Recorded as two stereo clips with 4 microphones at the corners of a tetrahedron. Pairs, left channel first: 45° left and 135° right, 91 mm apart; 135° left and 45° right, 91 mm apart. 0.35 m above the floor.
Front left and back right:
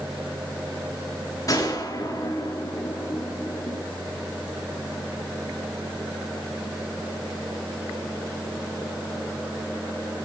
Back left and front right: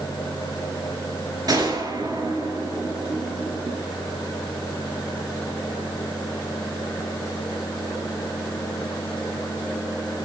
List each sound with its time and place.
1.5 s a gunshot: straight ahead, 4 m